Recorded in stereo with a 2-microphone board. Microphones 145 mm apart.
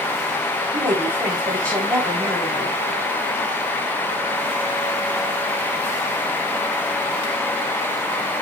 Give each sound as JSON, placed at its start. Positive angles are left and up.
{"t": 0.7, "sound": "a woman speaking", "side_deg": -20, "distance_m": 3.5}